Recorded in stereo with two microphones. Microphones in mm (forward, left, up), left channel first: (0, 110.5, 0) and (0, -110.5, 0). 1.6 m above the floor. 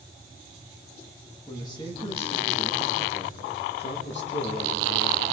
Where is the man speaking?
15° left (ahead or behind), 3 m; by 5.2 s 75° left (ahead or behind), 2.5 m.